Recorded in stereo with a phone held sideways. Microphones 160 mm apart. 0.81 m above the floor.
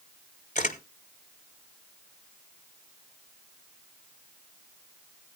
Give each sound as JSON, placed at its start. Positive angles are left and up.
{"t": 0.6, "sound": "a camera shutter", "side_deg": 50, "distance_m": 1.2}